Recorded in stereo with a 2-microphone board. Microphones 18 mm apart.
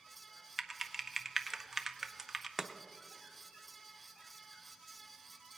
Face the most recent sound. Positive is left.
turn(degrees=-15)  # may be behind; listen again after turning